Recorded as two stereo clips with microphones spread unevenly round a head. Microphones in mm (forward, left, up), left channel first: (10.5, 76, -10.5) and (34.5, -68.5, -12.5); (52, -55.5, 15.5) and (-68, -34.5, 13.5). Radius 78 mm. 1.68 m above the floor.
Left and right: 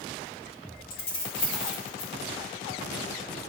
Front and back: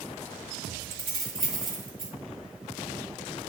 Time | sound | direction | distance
0.9 | keys jangling | 95° left | 2 m